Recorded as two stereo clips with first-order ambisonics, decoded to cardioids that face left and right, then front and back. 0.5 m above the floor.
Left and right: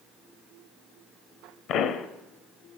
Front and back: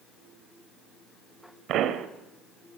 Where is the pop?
135° left, 0.8 m.